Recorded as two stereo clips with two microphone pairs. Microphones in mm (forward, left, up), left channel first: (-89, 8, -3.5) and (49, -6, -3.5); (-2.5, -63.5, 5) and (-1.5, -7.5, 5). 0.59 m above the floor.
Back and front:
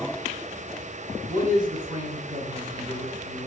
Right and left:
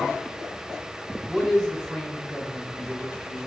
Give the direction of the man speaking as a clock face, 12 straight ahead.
12 o'clock.